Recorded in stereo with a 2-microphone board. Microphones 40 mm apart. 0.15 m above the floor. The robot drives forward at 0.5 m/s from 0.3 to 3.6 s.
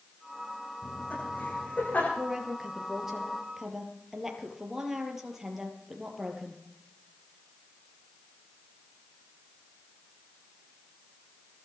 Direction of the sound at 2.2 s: 10° right (ahead or behind).